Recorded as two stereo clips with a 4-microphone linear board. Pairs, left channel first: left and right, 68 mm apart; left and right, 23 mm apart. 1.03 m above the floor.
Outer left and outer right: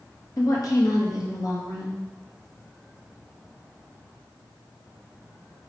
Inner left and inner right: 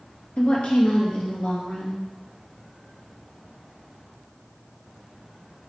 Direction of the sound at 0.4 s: 60° left (ahead or behind).